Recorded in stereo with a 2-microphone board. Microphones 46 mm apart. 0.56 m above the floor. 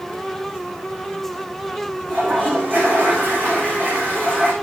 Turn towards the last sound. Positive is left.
turn(degrees=-45)  # may be behind; listen again after turning